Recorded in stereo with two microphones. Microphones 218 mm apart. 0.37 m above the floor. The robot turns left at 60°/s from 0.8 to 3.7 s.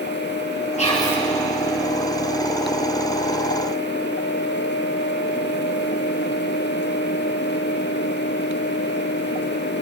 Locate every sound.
0.8 s whispering: 30° left (ahead or behind), 6 m; by 1.2 s 5° left (ahead or behind), 6 m